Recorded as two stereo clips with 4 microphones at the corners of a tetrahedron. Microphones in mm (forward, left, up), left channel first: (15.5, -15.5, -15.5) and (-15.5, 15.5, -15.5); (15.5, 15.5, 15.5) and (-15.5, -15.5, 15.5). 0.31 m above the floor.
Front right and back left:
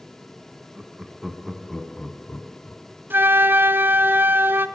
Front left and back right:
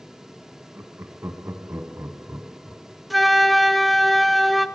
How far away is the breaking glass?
I don't hear breaking glass.